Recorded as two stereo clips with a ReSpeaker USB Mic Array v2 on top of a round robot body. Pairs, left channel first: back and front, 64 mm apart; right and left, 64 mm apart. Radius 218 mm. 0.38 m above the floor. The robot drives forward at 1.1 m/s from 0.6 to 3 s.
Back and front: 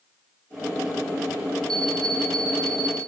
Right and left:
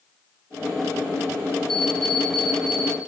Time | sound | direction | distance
1.7 | an alarm clock | 5° right | 7.5 m